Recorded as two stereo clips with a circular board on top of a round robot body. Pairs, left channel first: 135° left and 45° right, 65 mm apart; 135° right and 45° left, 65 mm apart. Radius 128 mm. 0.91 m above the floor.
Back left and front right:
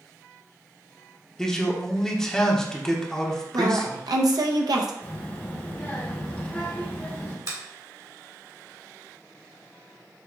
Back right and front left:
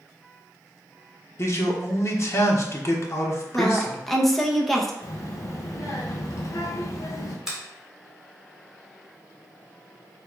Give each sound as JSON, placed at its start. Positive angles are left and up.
{"t": 1.4, "sound": "a man speaking", "azimuth_deg": -145, "distance_m": 1.2}
{"t": 3.5, "sound": "a woman speaking", "azimuth_deg": -45, "distance_m": 0.9}
{"t": 5.0, "sound": "a child speaking", "azimuth_deg": -165, "distance_m": 0.7}
{"t": 7.5, "sound": "a finger snap", "azimuth_deg": -35, "distance_m": 1.9}